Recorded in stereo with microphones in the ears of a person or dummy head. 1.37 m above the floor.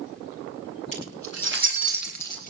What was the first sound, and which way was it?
Keys jangling, 35° left (ahead or behind).